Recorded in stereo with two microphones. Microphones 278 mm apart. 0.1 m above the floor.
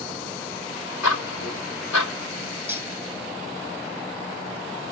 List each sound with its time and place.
1.0 s ticking: 80° left, 0.8 m
2.7 s cutlery clinking: 10° right (ahead or behind), 0.7 m